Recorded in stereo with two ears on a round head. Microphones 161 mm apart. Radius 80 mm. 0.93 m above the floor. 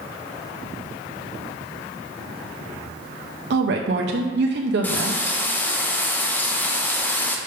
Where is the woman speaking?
65° right (ahead or behind), 0.5 m.